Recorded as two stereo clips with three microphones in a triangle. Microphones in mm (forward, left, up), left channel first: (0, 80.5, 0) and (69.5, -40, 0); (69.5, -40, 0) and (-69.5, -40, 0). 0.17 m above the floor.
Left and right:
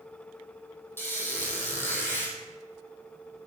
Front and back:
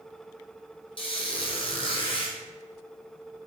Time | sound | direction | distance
1.0 | a squeak | 45° left | 0.7 m